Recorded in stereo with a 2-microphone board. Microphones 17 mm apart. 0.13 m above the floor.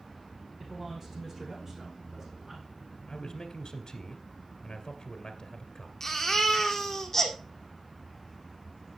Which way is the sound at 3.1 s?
40° left (ahead or behind).